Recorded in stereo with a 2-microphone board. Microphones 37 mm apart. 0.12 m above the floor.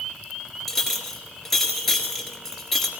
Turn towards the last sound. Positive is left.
turn(degrees=10)  # may be behind; listen again after turning